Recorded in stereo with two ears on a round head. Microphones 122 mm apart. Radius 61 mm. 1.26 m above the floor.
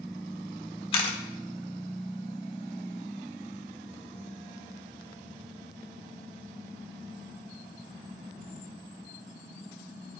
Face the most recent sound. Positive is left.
turn(degrees=40)  # may be behind; listen again after turning